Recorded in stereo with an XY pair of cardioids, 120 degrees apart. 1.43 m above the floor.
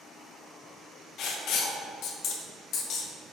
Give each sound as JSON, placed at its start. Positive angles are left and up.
{"t": 1.2, "sound": "writing", "azimuth_deg": 70, "distance_m": 0.6}